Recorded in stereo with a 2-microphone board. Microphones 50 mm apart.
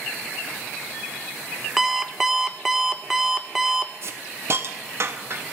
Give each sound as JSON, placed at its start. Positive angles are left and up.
{"t": 1.8, "sound": "an alarm clock", "side_deg": -5, "distance_m": 0.8}
{"t": 4.0, "sound": "a hiss", "side_deg": -55, "distance_m": 1.2}